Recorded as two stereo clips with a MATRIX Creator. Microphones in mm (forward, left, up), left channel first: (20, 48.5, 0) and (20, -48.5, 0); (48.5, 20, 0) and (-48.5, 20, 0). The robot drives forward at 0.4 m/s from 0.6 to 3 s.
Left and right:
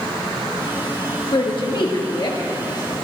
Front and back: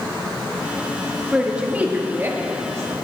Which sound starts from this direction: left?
A woman speaking, at 1.3 s.